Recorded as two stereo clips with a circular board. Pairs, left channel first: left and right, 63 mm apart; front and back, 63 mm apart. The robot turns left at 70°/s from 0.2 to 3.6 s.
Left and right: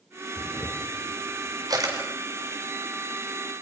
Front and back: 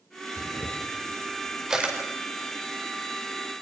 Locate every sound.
0.4 s a camera shutter: 5° right, 5 m; by 1.9 s 115° right, 5 m